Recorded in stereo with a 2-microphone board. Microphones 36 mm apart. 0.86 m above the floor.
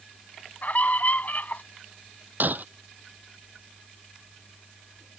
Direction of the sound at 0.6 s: 50° left (ahead or behind).